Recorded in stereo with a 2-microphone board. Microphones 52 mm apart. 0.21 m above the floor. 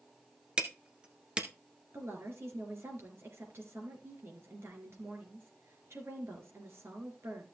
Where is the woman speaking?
50° right (ahead or behind), 3.5 m.